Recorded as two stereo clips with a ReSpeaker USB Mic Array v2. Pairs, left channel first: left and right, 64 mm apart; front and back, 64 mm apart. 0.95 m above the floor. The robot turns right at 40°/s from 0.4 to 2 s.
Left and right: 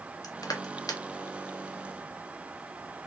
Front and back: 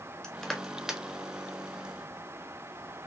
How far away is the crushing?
About 0.6 m.